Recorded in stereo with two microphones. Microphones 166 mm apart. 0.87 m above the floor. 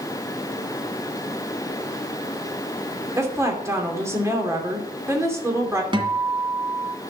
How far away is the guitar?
About 1.8 m.